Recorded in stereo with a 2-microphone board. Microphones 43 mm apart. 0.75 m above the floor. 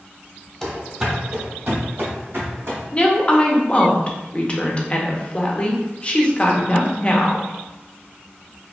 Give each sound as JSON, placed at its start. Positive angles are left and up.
{"t": 0.6, "sound": "running footsteps", "side_deg": 5, "distance_m": 0.9}
{"t": 2.9, "sound": "a woman speaking", "side_deg": 25, "distance_m": 0.6}